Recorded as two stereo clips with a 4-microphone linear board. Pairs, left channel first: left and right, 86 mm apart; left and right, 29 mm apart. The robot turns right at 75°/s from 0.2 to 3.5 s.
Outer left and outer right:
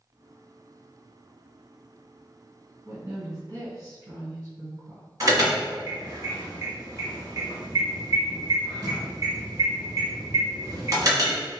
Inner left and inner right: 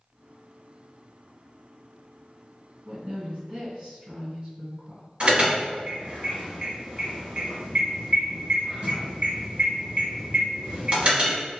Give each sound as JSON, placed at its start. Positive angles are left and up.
{"t": 2.9, "sound": "a woman speaking", "azimuth_deg": -150, "distance_m": 1.8}
{"t": 5.2, "sound": "an alarm", "side_deg": -45, "distance_m": 1.2}